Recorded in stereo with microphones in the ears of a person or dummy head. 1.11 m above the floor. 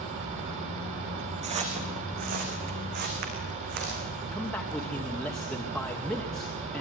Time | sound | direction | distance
1.4 | footsteps | 35° right (ahead or behind) | 3.5 m
4.3 | a man speaking | 5° left (ahead or behind) | 2.5 m